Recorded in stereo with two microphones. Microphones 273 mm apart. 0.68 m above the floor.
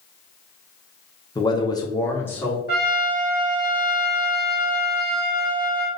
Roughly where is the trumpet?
Left.